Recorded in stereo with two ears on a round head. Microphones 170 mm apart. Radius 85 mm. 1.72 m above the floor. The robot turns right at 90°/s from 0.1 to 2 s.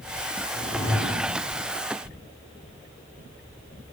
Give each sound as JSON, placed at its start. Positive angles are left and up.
{"t": 0.5, "sound": "a whoosh", "azimuth_deg": 125, "distance_m": 3.5}